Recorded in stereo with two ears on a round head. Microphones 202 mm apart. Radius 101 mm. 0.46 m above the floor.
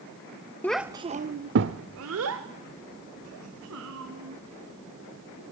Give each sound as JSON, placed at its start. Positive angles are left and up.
{"t": 0.6, "sound": "a child speaking", "side_deg": 10, "distance_m": 0.6}